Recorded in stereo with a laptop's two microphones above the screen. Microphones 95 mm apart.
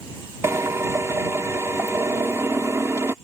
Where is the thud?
No thud in this recording.